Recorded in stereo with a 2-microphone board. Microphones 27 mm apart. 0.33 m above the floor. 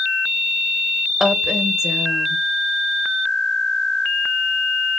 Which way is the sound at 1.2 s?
20° right (ahead or behind).